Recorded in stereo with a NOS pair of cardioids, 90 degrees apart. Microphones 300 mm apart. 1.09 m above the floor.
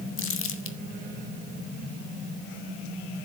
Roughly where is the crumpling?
Ahead left.